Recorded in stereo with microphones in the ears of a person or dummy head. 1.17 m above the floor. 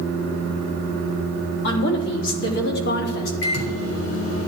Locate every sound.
1.6 s a woman speaking: 75° left (ahead or behind), 3 m; by 3.3 s 55° left (ahead or behind), 2 m
3.4 s a microwave: 85° left, 3 m